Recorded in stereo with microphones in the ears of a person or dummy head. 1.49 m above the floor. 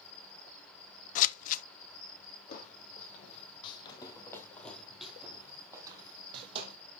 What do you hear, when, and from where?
0.0 s an insect: 30° left (ahead or behind), 5.5 m
1.1 s scissors: 50° left (ahead or behind), 0.8 m
2.5 s footsteps: 50° left (ahead or behind), 3 m; by 6.8 s 35° right (ahead or behind), 3 m